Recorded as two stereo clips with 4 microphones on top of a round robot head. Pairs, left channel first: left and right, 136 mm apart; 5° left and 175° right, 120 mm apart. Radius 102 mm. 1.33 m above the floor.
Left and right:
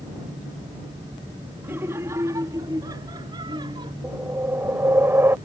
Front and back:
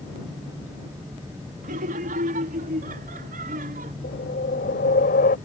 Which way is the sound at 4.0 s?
15° right.